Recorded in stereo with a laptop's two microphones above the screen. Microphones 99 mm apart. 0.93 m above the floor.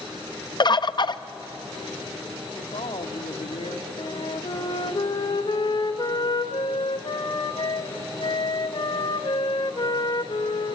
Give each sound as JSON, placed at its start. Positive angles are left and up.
{"t": 0.6, "sound": "a bird", "side_deg": 45, "distance_m": 0.6}
{"t": 2.6, "sound": "a woman speaking", "side_deg": 80, "distance_m": 1.9}
{"t": 4.0, "sound": "a flute", "side_deg": 50, "distance_m": 1.1}